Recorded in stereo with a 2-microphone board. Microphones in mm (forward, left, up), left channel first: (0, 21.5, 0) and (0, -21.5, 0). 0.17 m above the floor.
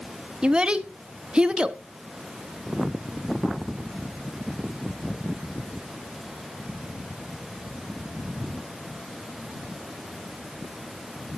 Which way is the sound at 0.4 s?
25° right (ahead or behind).